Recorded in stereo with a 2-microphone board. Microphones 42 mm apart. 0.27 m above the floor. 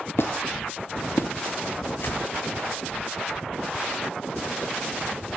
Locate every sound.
0.2 s a squeak: 70° left (ahead or behind), 0.7 m
2.0 s a whoosh: 55° left (ahead or behind), 2 m